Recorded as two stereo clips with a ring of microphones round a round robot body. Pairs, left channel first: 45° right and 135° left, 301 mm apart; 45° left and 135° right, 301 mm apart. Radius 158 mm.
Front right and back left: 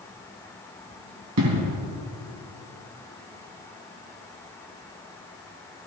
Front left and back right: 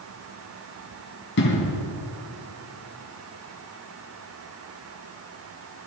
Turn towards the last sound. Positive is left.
turn(degrees=100)